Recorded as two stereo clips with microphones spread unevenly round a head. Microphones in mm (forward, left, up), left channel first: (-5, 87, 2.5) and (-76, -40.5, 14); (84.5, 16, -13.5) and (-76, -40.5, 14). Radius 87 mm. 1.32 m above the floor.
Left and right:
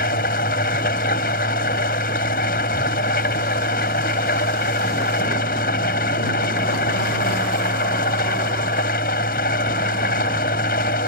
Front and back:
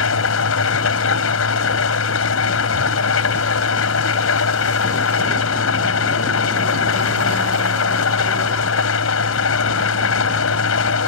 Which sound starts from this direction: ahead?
An engine running, at 0.0 s.